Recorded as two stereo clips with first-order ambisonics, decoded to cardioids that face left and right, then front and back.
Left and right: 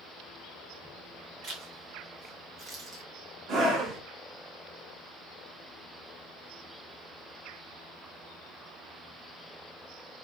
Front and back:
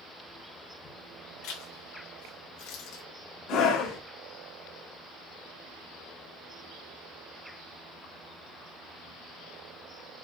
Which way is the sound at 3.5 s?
40° right.